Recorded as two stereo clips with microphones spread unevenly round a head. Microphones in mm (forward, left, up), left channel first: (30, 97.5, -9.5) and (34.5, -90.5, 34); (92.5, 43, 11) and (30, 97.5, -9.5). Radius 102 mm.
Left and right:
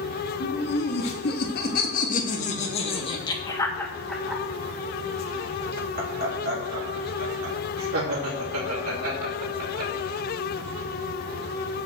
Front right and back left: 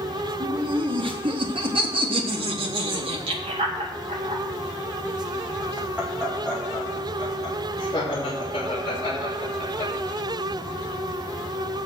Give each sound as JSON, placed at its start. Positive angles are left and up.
{"t": 0.4, "sound": "laughter", "azimuth_deg": 130, "distance_m": 3.5}